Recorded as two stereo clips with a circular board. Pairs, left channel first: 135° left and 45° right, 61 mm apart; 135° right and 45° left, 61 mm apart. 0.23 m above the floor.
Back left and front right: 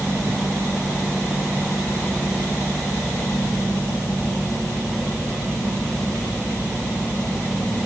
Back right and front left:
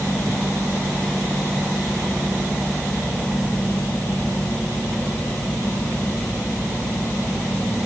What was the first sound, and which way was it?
Only background noise.